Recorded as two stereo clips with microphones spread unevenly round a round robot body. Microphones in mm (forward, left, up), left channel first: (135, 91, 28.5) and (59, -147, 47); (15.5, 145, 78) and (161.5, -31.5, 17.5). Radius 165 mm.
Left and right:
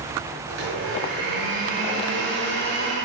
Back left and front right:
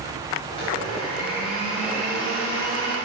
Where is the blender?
155° right, 3 m.